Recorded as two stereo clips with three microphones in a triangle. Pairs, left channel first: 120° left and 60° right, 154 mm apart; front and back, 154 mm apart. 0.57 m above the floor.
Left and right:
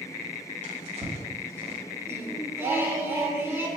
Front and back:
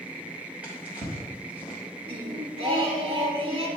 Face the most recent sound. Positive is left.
turn(degrees=-130)